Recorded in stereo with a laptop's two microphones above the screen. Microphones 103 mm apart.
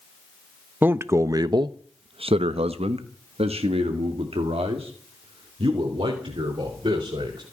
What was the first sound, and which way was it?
A man speaking, 20° right (ahead or behind).